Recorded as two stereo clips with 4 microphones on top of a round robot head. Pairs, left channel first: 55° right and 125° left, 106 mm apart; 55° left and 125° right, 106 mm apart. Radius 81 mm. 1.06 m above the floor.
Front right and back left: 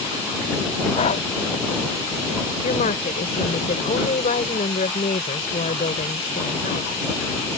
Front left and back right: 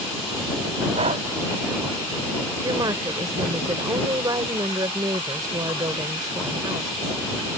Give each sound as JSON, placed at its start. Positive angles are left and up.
{"t": 0.9, "sound": "breathing", "azimuth_deg": -85}
{"t": 2.6, "sound": "a woman speaking", "azimuth_deg": -65}